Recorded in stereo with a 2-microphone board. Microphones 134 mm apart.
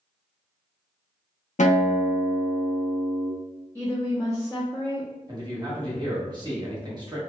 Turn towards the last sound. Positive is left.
turn(degrees=-35)  # may be behind; listen again after turning